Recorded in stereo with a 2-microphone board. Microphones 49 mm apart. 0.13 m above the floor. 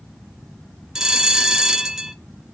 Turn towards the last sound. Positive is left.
turn(degrees=-10)  # may be behind; listen again after turning